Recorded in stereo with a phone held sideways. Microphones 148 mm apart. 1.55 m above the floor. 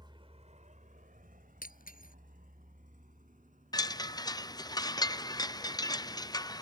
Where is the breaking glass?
80° left.